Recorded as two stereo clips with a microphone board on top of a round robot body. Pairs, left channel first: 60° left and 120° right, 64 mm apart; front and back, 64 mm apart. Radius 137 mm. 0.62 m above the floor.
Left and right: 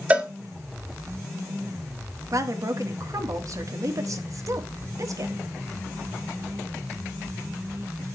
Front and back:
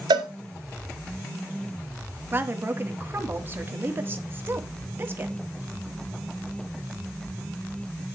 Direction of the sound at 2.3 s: 130° right.